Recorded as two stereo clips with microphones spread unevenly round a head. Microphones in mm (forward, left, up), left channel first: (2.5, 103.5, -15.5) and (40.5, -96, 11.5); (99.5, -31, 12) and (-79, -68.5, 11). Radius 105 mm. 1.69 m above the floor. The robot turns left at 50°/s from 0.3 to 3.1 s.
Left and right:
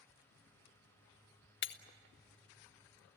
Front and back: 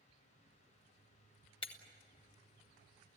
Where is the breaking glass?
75° left, 1.2 m; by 1.8 s 65° left, 1.2 m.